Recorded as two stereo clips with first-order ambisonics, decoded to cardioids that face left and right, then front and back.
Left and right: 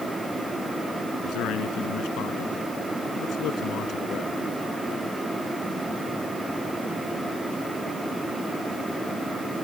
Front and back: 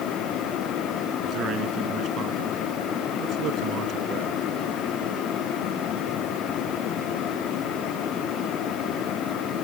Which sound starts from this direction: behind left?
A man speaking, at 1.2 s.